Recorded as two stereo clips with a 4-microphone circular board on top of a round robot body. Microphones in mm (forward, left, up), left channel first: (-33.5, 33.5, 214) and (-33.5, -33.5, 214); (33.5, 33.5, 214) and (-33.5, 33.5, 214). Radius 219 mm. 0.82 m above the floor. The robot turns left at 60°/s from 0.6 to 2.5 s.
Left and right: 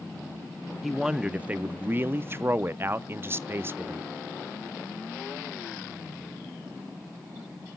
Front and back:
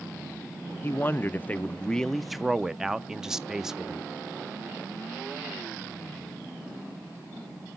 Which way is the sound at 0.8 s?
5° right.